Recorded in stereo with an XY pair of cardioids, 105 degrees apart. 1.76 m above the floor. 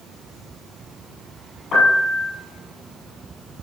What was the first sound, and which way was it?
A piano, 55° left.